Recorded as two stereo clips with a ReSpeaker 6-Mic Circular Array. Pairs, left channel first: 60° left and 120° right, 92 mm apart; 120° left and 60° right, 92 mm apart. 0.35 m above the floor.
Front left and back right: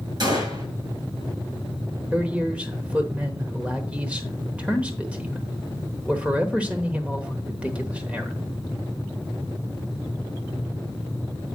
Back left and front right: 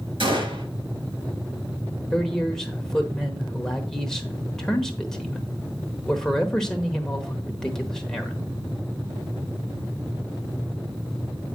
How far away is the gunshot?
About 6.5 m.